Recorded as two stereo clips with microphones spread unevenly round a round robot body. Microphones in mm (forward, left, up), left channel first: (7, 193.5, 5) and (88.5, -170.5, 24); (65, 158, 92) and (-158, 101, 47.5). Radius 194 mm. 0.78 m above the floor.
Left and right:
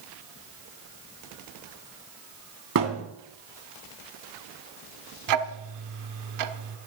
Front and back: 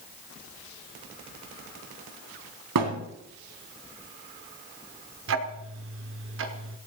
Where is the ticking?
125° right, 1.3 m.